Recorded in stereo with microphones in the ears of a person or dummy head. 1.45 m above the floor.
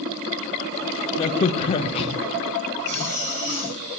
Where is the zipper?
45° right (ahead or behind), 3.5 m.